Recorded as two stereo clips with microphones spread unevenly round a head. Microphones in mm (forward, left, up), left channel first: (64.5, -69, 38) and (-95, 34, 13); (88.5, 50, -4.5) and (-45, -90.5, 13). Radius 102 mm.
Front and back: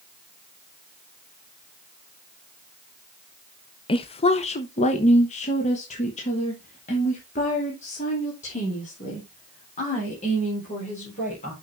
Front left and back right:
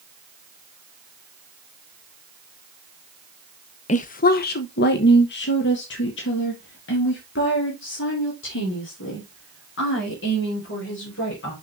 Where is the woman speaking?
25° left, 0.6 m.